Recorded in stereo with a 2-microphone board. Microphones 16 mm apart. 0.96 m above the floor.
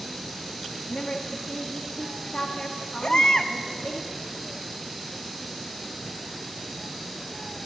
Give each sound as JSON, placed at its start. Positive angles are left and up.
{"t": 0.9, "sound": "a woman speaking", "side_deg": 70, "distance_m": 1.6}
{"t": 3.0, "sound": "a baby crying", "side_deg": 55, "distance_m": 0.7}